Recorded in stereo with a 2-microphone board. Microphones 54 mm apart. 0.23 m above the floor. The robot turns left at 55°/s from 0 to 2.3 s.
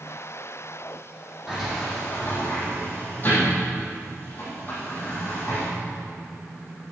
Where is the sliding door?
10° right (ahead or behind), 6.5 m; by 5.7 s 35° left (ahead or behind), 6.5 m.